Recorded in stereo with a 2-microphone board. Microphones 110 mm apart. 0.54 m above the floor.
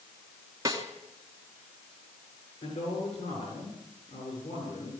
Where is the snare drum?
30° right (ahead or behind), 2.5 m.